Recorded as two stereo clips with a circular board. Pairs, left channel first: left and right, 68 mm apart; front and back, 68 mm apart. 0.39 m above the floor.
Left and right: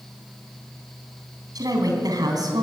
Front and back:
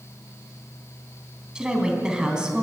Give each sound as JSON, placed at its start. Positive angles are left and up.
{"t": 1.6, "sound": "a woman speaking", "azimuth_deg": -100, "distance_m": 3.5}